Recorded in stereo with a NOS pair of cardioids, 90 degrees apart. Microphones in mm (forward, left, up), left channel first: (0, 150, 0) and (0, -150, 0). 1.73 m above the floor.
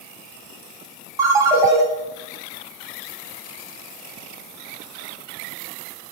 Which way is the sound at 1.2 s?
10° right.